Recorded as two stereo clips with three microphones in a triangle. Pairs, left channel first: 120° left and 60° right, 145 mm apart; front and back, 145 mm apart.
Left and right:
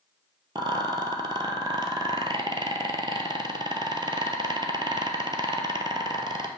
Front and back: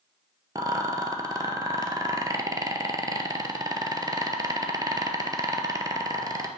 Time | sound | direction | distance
0.6 | a rattle | 115° right | 0.6 m